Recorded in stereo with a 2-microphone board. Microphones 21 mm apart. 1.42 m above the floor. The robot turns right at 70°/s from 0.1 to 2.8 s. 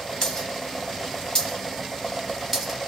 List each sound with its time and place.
0.2 s a dropped coin: 20° left (ahead or behind), 1.8 m; by 2.9 s 20° right (ahead or behind), 1.8 m